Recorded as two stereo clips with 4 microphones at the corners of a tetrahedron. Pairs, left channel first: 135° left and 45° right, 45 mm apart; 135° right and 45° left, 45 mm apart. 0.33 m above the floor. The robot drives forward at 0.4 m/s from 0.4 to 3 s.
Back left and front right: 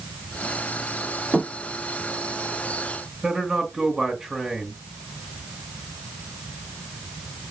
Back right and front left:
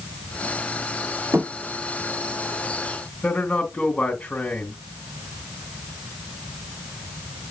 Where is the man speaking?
125° right, 1.5 m.